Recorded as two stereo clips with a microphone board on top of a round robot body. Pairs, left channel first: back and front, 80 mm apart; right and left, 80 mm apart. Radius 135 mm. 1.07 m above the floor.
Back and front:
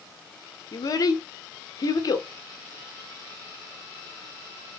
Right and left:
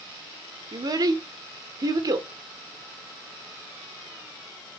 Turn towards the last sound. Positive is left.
turn(degrees=135)